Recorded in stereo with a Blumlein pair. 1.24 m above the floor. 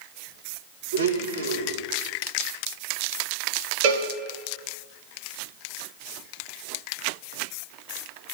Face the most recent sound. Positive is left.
turn(degrees=-45)